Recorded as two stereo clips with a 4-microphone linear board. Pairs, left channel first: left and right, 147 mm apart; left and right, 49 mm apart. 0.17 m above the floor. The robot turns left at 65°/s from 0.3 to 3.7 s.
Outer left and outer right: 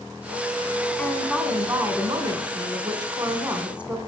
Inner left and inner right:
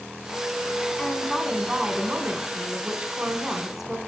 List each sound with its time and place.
1.0 s a woman speaking: 15° left, 1.4 m; by 4.0 s 165° right, 1.4 m